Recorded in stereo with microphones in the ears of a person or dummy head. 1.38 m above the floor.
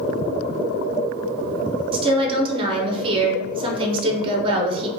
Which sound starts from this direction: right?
A woman speaking, at 1.9 s.